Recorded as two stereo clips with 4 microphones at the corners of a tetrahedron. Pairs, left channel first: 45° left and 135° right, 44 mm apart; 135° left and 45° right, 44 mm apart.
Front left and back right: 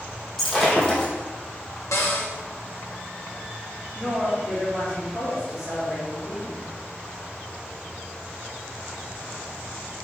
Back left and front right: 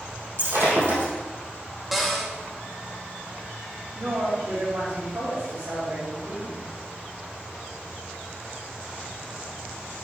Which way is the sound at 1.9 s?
40° left.